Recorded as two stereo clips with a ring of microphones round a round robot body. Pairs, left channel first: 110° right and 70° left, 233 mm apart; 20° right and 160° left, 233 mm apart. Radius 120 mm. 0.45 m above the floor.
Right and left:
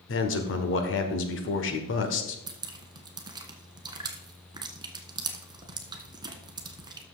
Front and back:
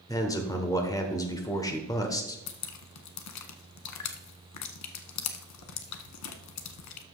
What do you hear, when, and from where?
0.1 s a man speaking: 95° right, 1.3 m
2.5 s dripping: 5° right, 0.9 m